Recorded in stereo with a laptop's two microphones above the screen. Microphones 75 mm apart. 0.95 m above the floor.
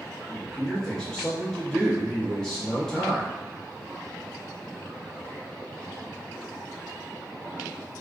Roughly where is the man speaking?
Centre.